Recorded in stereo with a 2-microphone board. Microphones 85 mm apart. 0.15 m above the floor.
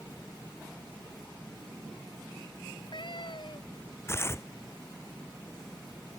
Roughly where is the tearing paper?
Left.